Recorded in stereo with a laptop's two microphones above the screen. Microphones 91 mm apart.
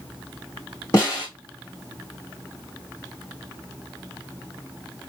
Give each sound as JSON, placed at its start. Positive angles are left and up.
{"t": 0.9, "sound": "a snare drum", "side_deg": 35, "distance_m": 1.7}